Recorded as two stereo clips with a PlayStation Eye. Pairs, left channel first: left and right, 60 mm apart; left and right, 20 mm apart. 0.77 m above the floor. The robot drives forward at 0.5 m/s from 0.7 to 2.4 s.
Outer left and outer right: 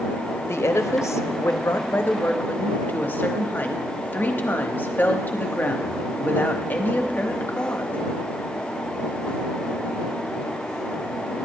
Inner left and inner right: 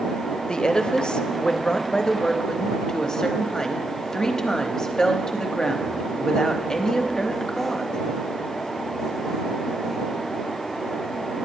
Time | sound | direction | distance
0.5 | a woman speaking | 45° left (ahead or behind) | 0.6 m